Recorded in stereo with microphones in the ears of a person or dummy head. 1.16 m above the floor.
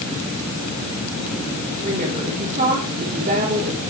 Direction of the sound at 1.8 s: 40° right (ahead or behind).